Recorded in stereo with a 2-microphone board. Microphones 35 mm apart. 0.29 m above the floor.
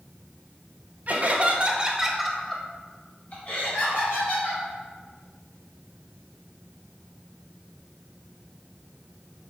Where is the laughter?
50° right (ahead or behind), 1.4 m; by 4.6 s 70° left (ahead or behind), 2.5 m.